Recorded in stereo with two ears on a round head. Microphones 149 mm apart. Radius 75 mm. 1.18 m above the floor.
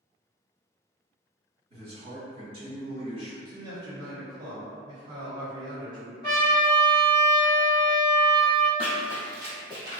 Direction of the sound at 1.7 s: 40° right (ahead or behind).